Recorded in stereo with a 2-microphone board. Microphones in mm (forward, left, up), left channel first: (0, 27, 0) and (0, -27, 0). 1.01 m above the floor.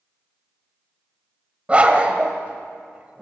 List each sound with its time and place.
1.7 s a dog barking: 25° right (ahead or behind), 1.7 m